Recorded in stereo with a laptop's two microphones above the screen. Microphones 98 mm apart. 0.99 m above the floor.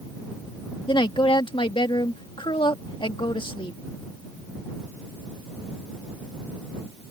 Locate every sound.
0.9 s a woman speaking: 60° left (ahead or behind)